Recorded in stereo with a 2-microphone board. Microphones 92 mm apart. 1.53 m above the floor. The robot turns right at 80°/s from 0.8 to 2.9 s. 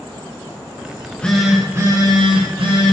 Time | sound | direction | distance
0.9 | a phone buzzing | 145° left | 1.2 m